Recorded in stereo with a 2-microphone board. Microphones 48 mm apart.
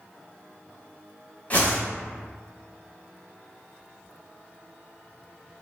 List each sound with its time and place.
1.5 s a whoosh: 35° left (ahead or behind), 1.0 m